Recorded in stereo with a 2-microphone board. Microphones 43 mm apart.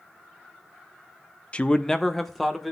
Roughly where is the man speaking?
Left.